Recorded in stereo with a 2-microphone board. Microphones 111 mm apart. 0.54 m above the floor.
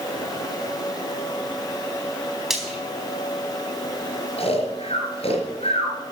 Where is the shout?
I don't hear a shout.